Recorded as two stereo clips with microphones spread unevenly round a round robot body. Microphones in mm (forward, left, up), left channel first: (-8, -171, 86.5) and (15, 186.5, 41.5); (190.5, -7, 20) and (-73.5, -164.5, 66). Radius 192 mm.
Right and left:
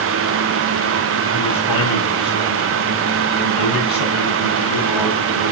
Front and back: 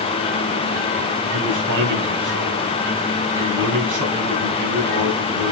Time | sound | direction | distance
1.3 | a man speaking | 125° right | 4 m